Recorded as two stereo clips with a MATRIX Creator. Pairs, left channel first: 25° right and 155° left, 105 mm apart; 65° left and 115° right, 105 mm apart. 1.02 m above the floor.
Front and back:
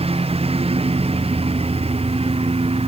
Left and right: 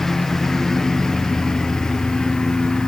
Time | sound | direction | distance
0.0 | a lawn mower | 155° left | ?